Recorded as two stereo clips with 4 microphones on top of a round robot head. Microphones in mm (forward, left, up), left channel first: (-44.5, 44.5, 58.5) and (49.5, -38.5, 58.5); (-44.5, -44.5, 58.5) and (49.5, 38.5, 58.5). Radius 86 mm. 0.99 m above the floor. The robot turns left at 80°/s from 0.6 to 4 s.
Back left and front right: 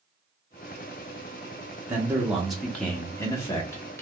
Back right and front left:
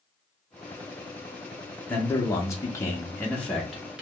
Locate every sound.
1.9 s a man speaking: 80° right, 0.8 m; by 4.0 s 110° left, 0.8 m